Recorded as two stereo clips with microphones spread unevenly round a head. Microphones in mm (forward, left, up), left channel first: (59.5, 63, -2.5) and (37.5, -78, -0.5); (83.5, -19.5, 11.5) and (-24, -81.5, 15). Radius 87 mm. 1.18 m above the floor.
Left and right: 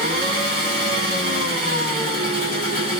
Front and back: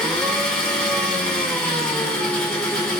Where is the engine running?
55° right, 1.8 m.